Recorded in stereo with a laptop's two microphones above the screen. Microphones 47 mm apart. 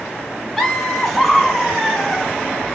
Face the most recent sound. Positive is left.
turn(degrees=5)  # may be behind; listen again after turning